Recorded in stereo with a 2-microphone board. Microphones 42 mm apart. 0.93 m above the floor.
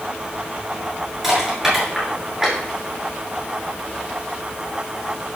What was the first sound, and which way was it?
Crushing, 5° right (ahead or behind).